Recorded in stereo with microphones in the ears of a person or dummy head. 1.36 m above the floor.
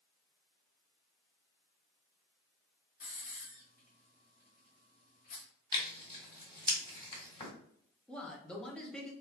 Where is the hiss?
55° left (ahead or behind), 1.3 m.